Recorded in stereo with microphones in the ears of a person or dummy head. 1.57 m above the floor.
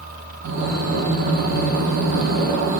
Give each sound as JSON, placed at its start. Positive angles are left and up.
{"t": 0.4, "sound": "breathing", "side_deg": -60, "distance_m": 1.0}